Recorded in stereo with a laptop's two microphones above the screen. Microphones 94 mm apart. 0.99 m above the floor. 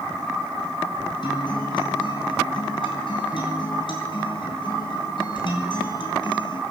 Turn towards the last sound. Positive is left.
turn(degrees=60)  # may be behind; listen again after turning